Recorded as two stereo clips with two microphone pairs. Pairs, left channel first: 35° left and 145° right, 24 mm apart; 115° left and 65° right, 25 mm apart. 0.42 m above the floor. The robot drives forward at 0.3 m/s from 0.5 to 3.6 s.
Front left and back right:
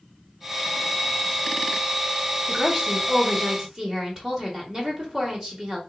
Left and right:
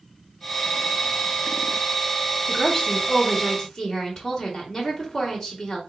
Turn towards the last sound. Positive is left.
turn(degrees=175)